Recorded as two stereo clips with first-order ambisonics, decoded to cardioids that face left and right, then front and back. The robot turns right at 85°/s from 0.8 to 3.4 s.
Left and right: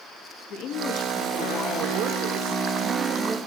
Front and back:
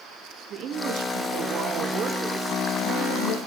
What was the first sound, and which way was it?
A woman speaking, 125° left.